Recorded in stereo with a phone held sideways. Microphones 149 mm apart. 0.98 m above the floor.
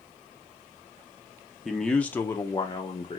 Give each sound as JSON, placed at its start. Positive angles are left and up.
{"t": 1.6, "sound": "a man speaking", "side_deg": 0, "distance_m": 1.0}